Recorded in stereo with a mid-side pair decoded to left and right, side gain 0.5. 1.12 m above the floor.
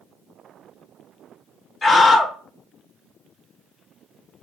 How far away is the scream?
About 1.1 m.